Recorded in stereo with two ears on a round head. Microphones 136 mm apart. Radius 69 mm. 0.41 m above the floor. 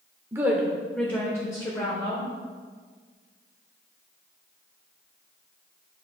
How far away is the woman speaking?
About 0.8 m.